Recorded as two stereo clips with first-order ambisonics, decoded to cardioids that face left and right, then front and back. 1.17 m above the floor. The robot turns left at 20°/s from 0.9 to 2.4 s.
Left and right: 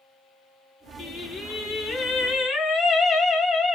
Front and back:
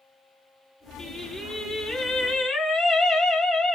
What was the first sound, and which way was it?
Singing, 75° left.